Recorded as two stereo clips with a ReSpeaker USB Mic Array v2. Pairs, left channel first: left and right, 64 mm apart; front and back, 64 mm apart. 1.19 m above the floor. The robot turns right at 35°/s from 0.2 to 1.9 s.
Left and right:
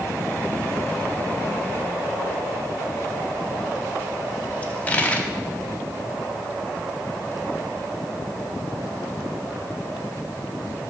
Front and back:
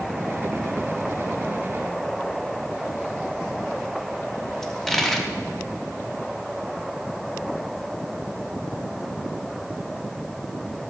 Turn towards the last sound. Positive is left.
turn(degrees=80)